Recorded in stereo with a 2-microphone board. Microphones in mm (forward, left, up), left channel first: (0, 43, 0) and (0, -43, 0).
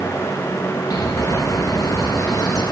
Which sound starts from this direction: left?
A bird, at 0.9 s.